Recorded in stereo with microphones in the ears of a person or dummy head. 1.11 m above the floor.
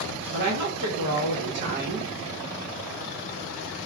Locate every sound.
0.3 s a woman speaking: 60° right (ahead or behind), 1.1 m